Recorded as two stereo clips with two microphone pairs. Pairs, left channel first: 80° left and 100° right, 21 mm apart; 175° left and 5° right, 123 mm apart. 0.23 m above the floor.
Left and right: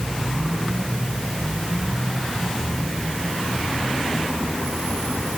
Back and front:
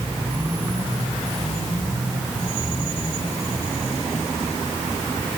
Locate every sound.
Only background noise.